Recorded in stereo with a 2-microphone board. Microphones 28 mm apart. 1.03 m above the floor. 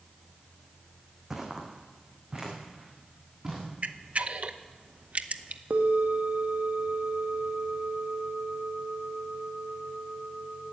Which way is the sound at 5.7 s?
60° right (ahead or behind).